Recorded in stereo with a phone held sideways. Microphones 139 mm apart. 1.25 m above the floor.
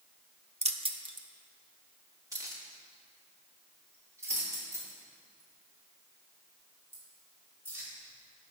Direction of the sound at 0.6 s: 50° right (ahead or behind).